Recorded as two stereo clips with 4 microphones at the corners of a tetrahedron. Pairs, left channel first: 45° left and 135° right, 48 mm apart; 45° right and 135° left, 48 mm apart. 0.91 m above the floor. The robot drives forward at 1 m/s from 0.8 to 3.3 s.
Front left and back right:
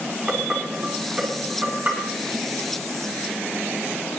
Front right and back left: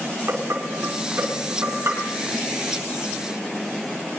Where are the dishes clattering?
155° left, 5.5 m; by 2.1 s 160° left, 6.5 m.